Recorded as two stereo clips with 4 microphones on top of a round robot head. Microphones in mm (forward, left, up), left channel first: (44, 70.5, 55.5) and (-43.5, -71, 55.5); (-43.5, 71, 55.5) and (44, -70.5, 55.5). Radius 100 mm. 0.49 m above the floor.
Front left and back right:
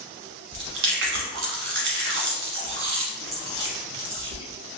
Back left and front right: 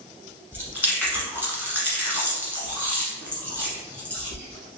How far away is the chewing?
About 1.0 m.